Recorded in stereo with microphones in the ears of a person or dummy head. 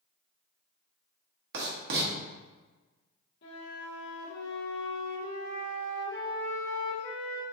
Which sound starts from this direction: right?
Writing, at 1.5 s.